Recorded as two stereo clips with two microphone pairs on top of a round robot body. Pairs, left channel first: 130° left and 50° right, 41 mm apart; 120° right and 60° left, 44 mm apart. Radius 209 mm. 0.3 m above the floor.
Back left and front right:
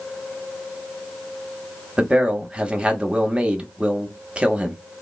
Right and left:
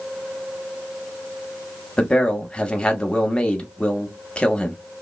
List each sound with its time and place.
2.0 s a man speaking: 70° right, 1.1 m